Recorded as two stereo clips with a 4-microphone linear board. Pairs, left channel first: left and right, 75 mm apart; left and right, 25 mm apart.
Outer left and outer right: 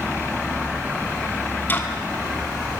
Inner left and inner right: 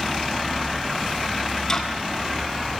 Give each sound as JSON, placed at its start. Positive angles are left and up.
{"t": 1.7, "sound": "ticking", "side_deg": 25, "distance_m": 2.5}